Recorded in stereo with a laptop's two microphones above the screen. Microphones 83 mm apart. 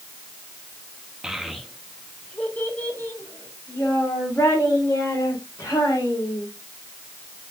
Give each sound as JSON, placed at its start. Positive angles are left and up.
{"t": 1.2, "sound": "a child speaking", "side_deg": -10, "distance_m": 0.9}